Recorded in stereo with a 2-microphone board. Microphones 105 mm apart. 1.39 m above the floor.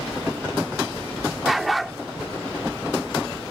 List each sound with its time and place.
1.4 s a dog barking: centre (ahead or behind)